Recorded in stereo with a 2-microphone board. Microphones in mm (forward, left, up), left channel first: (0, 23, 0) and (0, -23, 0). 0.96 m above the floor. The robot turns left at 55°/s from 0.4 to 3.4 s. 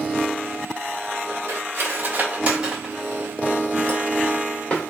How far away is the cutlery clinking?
About 1.9 m.